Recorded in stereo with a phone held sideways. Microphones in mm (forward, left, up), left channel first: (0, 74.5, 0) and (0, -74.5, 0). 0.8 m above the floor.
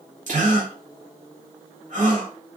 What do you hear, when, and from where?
0.3 s a gasp: 55° right (ahead or behind), 1.1 m